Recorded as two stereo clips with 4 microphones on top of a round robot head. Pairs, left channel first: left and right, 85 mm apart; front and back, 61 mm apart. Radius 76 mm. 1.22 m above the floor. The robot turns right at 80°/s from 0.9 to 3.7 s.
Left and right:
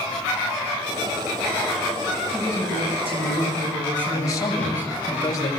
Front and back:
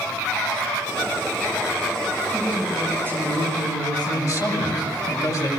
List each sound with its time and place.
2.3 s a woman speaking: 130° right, 10 m; by 5.1 s 20° right, 10 m
4.1 s a man speaking: 35° left, 9 m